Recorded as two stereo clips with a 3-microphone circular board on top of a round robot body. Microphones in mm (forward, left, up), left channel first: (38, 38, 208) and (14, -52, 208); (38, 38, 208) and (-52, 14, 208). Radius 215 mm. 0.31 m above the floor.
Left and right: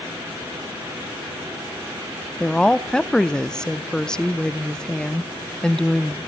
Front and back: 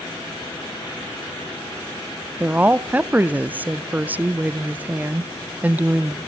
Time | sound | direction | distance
2.4 | a woman speaking | 145° left | 0.8 m